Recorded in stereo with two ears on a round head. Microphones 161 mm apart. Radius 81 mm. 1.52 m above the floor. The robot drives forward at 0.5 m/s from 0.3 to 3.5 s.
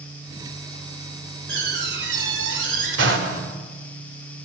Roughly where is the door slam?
Right.